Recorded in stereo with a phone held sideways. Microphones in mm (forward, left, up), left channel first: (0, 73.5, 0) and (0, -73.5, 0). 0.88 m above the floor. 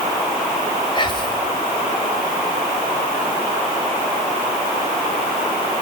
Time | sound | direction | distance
0.9 | whispering | 30° left (ahead or behind) | 2.5 m